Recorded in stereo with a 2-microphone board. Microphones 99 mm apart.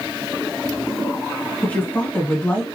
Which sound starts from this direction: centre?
A woman speaking, at 1.6 s.